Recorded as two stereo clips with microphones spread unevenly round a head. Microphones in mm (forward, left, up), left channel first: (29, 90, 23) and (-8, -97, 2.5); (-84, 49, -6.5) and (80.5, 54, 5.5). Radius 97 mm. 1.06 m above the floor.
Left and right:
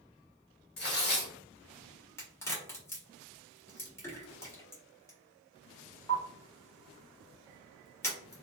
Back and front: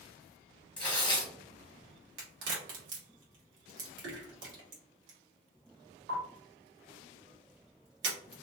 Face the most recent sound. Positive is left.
turn(degrees=0)